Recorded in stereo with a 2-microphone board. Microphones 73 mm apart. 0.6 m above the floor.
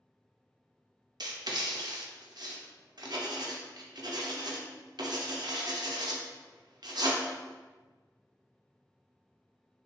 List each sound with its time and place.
1.2 s writing: 70° right (ahead or behind), 0.5 m